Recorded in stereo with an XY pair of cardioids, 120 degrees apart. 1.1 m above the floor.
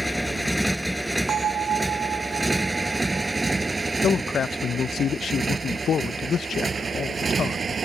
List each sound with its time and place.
0.0 s a motorcycle: 5° left; by 7.9 s 30° right
1.3 s a bell: 40° right
4.0 s a man speaking: 45° left